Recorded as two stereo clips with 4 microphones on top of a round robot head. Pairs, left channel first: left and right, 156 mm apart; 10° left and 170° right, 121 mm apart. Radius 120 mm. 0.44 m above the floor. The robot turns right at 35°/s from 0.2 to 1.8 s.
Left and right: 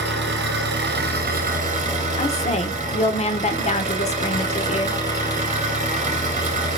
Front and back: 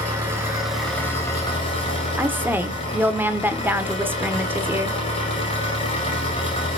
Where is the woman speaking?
120° left, 1.6 m.